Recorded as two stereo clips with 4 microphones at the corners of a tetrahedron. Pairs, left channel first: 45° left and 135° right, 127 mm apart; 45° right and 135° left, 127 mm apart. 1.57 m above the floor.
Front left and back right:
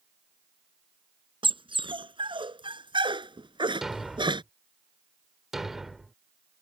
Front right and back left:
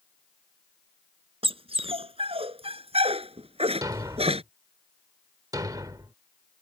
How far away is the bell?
I don't hear a bell.